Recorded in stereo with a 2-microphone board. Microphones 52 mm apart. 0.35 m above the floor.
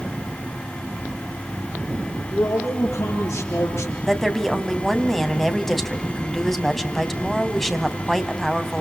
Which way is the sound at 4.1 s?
5° left (ahead or behind).